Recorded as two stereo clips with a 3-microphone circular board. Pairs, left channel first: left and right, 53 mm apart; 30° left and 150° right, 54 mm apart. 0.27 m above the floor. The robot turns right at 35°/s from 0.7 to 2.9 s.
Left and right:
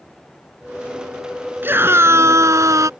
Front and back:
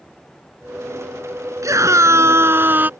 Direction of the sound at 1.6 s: 140° right.